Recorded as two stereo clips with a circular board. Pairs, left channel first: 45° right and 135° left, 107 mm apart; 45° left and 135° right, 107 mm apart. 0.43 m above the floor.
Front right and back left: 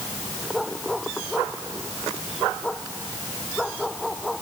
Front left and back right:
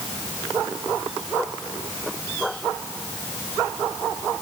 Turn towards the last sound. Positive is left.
No sound to turn to.